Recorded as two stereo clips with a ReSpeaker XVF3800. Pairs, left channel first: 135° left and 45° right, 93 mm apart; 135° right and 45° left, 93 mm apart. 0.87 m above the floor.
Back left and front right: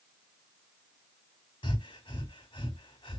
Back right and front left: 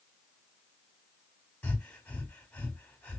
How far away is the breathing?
About 1.2 m.